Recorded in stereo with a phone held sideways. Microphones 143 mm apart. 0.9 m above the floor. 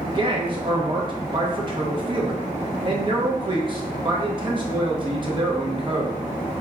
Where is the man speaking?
35° right (ahead or behind), 0.7 m.